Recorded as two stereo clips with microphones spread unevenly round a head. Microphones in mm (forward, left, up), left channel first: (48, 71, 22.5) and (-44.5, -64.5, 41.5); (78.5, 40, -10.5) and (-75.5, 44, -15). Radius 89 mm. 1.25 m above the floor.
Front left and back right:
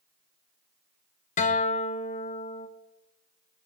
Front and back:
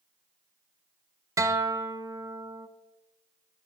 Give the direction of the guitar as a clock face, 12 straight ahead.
8 o'clock.